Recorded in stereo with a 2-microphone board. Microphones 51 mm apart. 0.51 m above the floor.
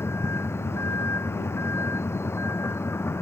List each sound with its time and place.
0.0 s a vehicle: 60° left (ahead or behind)